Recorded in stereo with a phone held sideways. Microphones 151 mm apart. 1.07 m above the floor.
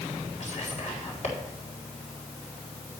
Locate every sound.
0.4 s whispering: 55° left (ahead or behind), 3.5 m